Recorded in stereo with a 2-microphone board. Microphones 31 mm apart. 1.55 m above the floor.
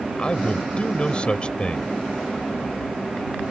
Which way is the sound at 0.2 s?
25° left (ahead or behind).